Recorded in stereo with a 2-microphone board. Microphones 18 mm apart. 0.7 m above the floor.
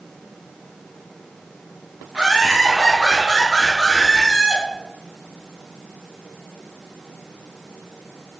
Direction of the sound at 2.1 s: 60° right (ahead or behind).